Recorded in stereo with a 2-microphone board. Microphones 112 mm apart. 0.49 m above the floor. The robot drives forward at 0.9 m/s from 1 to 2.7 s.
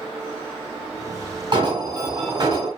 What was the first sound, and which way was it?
An alarm, 45° right (ahead or behind).